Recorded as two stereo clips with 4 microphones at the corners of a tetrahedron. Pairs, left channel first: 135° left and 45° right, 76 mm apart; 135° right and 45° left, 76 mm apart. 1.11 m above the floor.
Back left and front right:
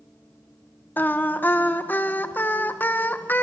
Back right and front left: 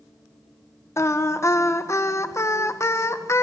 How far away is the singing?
About 1.0 m.